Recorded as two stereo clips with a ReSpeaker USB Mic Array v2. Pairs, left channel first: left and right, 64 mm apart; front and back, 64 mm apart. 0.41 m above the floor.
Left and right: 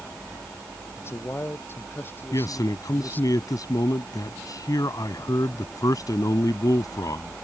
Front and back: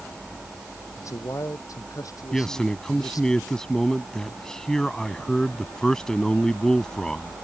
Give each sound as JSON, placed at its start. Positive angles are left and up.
{"t": 1.0, "sound": "a man speaking", "azimuth_deg": 40}
{"t": 2.3, "sound": "a man speaking", "azimuth_deg": 80}